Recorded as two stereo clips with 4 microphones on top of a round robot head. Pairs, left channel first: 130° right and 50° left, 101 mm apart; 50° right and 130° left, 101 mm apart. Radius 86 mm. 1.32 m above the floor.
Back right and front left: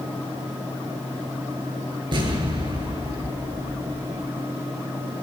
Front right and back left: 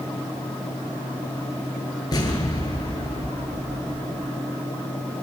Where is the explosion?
5° left, 9 m.